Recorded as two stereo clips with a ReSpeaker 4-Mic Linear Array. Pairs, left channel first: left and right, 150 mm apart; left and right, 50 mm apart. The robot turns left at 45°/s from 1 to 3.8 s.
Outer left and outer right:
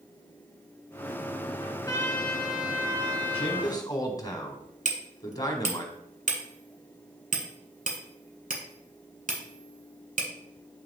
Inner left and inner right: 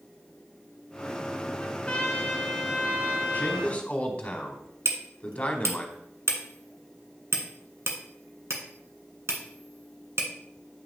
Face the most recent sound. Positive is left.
turn(degrees=-60)  # may be behind; listen again after turning